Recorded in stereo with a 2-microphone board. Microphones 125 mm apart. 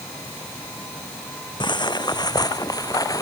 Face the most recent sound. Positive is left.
turn(degrees=30)  # may be behind; listen again after turning